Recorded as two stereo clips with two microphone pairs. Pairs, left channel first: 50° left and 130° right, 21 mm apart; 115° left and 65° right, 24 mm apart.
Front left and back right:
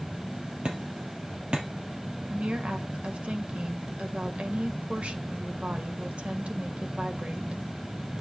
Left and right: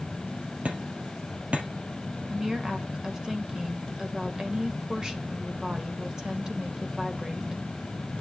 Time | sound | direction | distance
0.7 | hammering | 95° right | 3.5 m
2.3 | a woman speaking | 130° right | 2 m